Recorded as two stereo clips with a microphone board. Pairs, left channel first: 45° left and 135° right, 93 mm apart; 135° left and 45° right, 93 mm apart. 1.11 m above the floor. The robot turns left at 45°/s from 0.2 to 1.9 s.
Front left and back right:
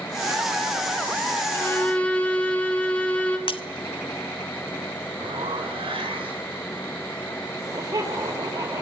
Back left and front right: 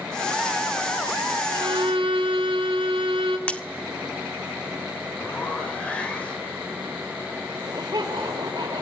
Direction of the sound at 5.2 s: 150° right.